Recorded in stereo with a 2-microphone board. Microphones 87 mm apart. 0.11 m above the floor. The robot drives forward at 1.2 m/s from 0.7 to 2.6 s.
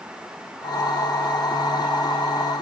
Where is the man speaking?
No man speaking in this recording.